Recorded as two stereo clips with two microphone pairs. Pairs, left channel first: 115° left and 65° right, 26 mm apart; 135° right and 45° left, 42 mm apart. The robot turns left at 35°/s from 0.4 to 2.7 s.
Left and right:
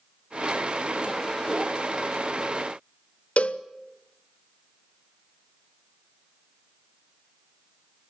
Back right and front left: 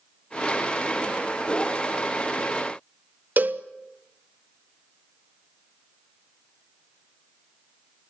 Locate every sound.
3.4 s a cowbell: 90° left, 1.0 m